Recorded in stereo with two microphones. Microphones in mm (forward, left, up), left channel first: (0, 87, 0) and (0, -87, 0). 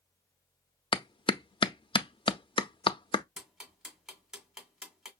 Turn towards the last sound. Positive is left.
turn(degrees=-5)  # may be behind; listen again after turning